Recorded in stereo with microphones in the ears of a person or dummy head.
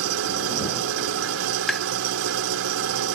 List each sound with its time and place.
0.0 s an engine running: 80° right
1.7 s tapping: 5° right (ahead or behind)